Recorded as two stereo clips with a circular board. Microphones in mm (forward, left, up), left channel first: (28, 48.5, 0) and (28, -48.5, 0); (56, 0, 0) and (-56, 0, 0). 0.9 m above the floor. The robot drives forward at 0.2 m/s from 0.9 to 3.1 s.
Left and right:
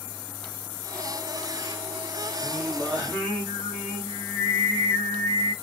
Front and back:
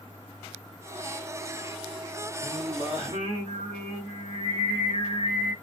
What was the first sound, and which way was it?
Singing, 165° left.